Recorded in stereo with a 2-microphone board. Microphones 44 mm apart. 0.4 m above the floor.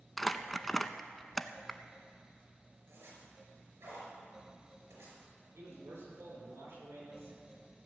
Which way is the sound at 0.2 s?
5° left (ahead or behind).